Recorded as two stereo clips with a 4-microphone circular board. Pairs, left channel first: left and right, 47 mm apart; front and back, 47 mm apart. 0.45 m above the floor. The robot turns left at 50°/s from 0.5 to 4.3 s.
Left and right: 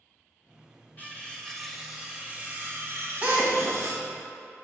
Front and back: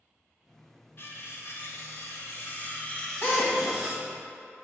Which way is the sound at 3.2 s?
30° right.